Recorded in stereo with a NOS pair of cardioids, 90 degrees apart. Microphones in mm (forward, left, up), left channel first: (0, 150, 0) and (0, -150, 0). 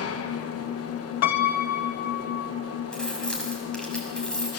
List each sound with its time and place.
0.0 s an engine running: 50° left, 1.4 m
1.2 s a piano: 65° left, 1.4 m
2.9 s keys jangling: 5° left, 6 m